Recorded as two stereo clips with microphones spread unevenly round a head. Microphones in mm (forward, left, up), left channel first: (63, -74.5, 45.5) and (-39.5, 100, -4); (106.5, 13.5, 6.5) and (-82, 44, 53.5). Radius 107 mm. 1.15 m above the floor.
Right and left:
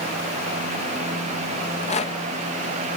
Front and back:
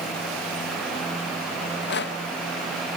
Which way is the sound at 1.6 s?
5° left.